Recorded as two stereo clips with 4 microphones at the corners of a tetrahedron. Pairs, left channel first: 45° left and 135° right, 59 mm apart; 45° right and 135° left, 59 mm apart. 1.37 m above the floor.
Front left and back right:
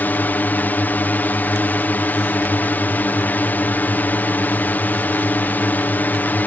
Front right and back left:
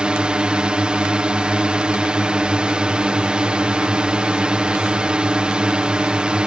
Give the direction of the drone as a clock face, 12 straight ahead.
10 o'clock.